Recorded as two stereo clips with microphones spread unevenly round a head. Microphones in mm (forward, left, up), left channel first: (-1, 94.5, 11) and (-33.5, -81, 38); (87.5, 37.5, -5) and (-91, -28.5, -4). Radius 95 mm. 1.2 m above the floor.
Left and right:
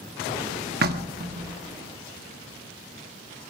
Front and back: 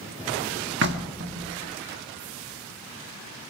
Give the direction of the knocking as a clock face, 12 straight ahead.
4 o'clock.